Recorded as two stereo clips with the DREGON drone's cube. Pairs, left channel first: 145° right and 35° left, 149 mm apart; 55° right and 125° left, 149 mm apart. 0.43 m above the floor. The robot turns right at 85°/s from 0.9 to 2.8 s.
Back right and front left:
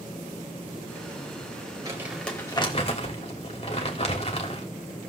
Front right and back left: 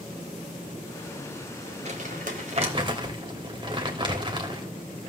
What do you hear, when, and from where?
1.9 s crumpling: 95° left, 2 m; by 4.7 s 175° left, 2 m